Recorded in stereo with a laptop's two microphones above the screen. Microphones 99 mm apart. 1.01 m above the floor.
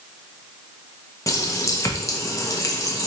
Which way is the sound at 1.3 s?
30° left (ahead or behind).